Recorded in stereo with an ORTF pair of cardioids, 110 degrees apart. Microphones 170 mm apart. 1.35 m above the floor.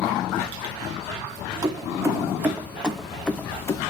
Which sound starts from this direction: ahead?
Keys jangling, at 1.6 s.